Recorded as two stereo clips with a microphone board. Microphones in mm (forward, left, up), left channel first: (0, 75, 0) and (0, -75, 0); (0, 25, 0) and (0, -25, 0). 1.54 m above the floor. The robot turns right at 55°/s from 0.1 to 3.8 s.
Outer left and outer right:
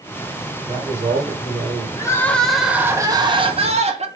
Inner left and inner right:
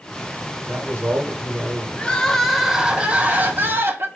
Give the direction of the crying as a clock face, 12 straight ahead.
7 o'clock.